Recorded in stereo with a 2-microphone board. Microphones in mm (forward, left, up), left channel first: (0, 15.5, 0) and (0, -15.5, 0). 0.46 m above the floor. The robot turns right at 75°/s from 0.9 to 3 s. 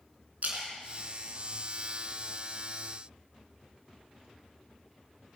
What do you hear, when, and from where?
0.4 s a splash: 50° right (ahead or behind), 3 m; by 2.3 s 25° right (ahead or behind), 3 m